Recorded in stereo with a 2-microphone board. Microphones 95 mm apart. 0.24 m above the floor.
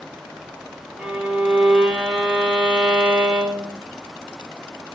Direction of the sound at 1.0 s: 10° right (ahead or behind).